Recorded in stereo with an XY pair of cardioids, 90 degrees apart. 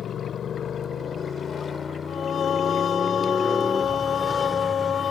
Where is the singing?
55° left.